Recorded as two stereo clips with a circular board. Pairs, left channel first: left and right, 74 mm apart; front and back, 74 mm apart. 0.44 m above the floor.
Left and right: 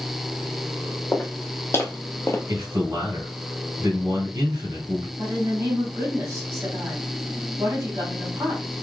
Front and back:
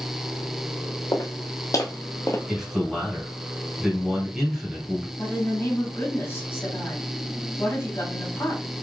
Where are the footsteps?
30° left, 1.3 m; by 2.4 s 40° left, 0.7 m.